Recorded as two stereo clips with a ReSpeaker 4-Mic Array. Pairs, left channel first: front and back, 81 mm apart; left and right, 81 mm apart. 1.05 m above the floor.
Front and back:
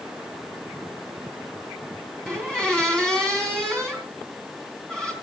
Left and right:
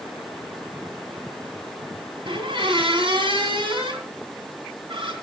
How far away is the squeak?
About 3 m.